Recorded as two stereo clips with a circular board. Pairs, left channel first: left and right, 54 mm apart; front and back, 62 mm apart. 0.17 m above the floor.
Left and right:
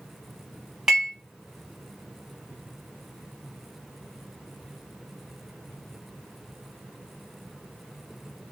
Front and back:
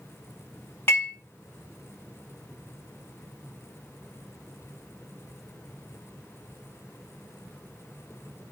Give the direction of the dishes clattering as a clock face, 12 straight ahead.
1 o'clock.